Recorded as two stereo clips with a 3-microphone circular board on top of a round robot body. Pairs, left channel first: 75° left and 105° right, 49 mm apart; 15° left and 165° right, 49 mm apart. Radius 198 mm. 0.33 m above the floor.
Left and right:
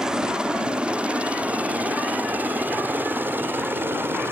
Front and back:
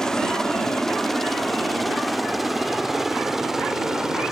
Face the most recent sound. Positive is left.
turn(degrees=-85)